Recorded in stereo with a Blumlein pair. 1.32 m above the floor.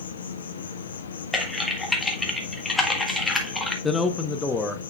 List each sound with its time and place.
0.0 s an insect: 65° left, 0.9 m
1.3 s typing on a keyboard: 10° left, 1.4 m
3.8 s a man speaking: 10° left, 0.7 m